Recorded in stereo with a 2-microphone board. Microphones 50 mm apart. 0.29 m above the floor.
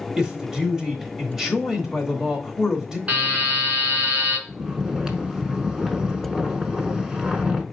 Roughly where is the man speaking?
Centre.